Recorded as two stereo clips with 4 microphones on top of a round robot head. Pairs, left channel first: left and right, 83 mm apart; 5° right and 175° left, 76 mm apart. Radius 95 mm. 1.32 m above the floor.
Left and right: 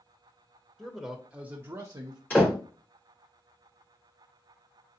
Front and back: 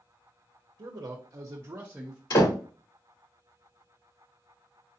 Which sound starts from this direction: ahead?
A door slam, at 2.3 s.